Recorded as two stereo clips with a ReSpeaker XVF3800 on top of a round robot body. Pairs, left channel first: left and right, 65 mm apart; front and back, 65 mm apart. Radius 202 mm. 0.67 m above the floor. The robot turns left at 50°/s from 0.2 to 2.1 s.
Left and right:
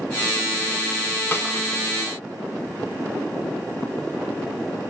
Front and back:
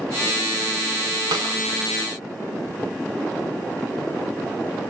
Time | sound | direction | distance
1.3 | a snare drum | 155° left | 0.5 m